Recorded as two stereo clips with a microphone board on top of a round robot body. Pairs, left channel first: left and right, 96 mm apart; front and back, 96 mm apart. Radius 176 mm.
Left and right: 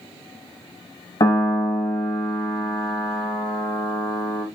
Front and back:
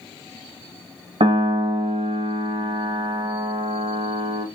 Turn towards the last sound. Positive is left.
turn(degrees=145)